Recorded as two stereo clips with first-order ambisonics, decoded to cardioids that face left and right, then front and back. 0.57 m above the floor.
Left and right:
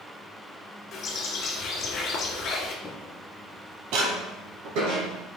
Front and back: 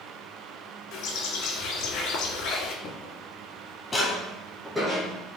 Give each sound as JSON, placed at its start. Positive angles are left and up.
{"t": 0.9, "sound": "a bird", "azimuth_deg": 40, "distance_m": 1.3}
{"t": 2.8, "sound": "footsteps", "azimuth_deg": 20, "distance_m": 0.8}